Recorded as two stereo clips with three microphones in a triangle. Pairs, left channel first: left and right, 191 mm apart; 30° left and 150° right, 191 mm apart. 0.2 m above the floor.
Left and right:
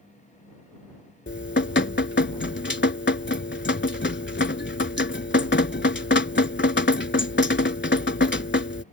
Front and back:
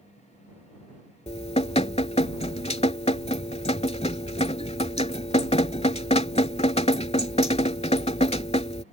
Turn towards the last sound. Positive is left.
turn(degrees=80)